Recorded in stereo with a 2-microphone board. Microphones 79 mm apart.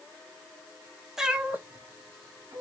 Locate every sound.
1.2 s a cat meowing: 5° right (ahead or behind), 0.9 m; by 2.6 s 50° right (ahead or behind), 1.4 m